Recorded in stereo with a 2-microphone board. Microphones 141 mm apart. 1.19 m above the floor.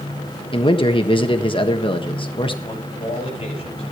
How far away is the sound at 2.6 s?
About 10 m.